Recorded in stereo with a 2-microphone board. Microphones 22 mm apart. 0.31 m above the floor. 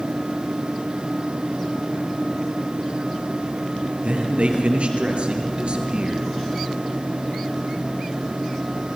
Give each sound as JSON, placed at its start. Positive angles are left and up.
{"t": 4.0, "sound": "a man speaking", "side_deg": -80, "distance_m": 5.0}